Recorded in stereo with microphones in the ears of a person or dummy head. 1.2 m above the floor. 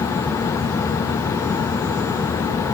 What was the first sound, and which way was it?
Only background noise.